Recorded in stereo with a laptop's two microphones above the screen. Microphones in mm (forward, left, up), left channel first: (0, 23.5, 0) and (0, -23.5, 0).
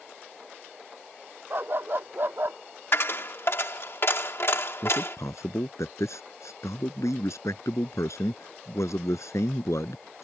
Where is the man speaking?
90° left.